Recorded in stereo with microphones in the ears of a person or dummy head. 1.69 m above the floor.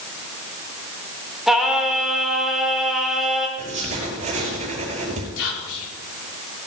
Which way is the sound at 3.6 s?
40° right (ahead or behind).